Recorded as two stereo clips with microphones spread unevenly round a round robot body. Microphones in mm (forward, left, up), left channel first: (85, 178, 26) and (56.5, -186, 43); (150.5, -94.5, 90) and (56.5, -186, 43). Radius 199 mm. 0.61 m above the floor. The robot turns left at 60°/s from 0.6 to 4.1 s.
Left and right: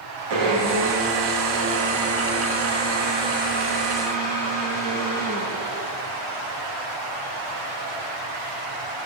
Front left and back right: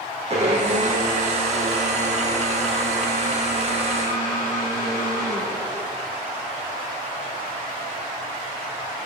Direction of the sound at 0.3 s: 95° right.